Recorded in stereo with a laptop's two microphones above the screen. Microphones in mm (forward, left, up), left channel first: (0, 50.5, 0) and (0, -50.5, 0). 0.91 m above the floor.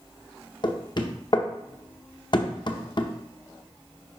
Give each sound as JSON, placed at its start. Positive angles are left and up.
{"t": 0.6, "sound": "knocking", "side_deg": 50, "distance_m": 0.7}